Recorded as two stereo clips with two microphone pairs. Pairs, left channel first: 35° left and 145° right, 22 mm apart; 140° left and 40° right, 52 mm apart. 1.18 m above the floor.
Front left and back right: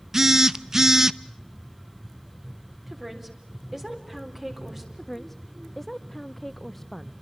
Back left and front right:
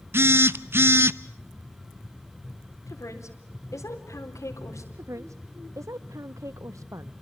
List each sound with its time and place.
0.1 s a phone buzzing: 85° right, 0.7 m
2.9 s a woman speaking: 135° left, 4 m
4.9 s a woman speaking: 50° right, 0.5 m